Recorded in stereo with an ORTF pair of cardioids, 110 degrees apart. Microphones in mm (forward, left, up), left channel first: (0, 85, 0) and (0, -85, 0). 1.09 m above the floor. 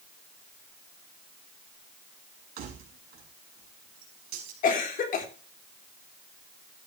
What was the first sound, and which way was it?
Keys jangling, 65° right.